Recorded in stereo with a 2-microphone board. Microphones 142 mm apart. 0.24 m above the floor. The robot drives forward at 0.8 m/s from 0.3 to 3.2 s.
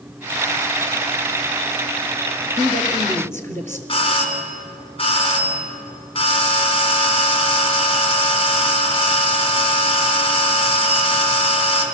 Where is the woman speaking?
20° left (ahead or behind), 3 m; by 3.8 s 15° left (ahead or behind), 3.5 m.